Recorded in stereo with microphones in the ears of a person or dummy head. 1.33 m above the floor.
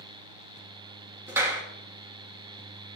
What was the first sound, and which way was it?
A clap, 10° right (ahead or behind).